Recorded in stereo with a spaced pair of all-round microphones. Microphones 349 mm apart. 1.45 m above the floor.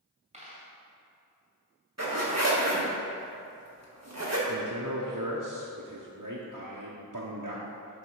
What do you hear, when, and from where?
0.3 s a dropped coin: 20° right (ahead or behind), 2.5 m
2.0 s a zipper: 50° right (ahead or behind), 1.6 m
4.5 s a man speaking: 60° right (ahead or behind), 1.0 m